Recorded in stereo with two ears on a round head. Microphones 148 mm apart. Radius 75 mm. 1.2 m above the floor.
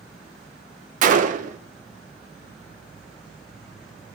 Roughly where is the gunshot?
Right.